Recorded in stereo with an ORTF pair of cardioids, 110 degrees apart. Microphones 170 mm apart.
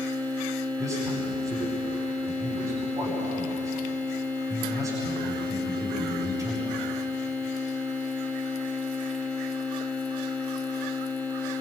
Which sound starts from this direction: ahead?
A man speaking, at 0.8 s.